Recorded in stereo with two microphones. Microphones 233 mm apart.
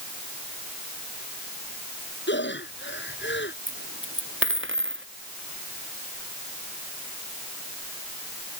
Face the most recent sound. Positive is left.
turn(degrees=-60)  # may be behind; listen again after turning